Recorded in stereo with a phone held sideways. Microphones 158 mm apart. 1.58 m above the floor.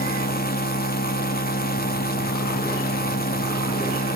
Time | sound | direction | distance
0.0 | a machine running | 70° left (ahead or behind) | 2.5 m